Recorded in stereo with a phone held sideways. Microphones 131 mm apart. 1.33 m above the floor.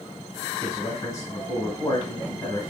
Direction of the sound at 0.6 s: 35° left (ahead or behind).